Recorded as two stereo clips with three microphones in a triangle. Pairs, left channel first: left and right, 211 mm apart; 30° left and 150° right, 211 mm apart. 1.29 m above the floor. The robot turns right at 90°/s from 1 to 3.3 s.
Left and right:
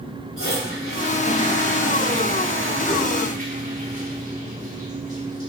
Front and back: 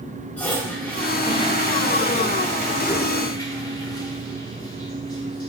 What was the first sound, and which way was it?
A toilet flushing, 115° left.